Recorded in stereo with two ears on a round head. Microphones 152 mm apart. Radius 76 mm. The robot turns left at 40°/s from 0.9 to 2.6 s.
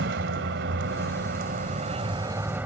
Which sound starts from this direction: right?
A vehicle, at 0.0 s.